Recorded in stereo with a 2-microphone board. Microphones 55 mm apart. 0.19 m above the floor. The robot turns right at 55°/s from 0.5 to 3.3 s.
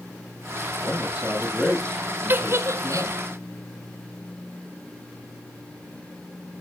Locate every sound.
0.8 s a man speaking: 40° right, 7.5 m; by 3.2 s 90° left, 7.5 m
2.3 s a giggle: 35° right (ahead or behind), 1.2 m; by 3.1 s 65° right (ahead or behind), 1.2 m